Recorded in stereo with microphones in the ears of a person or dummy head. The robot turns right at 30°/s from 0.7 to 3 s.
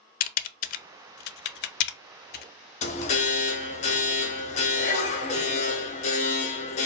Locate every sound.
0.2 s typing on a keyboard: 40° left (ahead or behind), 0.5 m
2.8 s an alarm: 30° left (ahead or behind), 0.8 m